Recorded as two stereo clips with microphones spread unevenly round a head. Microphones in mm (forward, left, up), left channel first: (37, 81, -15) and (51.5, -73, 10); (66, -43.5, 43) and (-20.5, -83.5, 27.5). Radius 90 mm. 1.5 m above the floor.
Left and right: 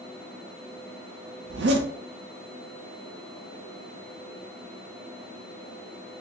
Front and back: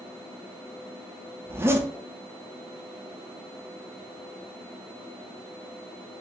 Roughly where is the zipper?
Right.